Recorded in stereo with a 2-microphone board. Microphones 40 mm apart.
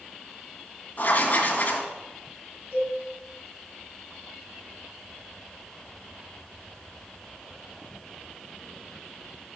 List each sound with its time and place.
1.0 s writing: 45° left (ahead or behind), 1.9 m
2.7 s a cowbell: 50° right (ahead or behind), 5 m